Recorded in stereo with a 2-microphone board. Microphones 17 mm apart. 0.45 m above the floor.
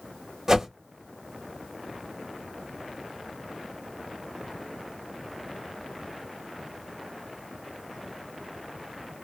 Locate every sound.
0.5 s a whoosh: 30° right (ahead or behind), 0.7 m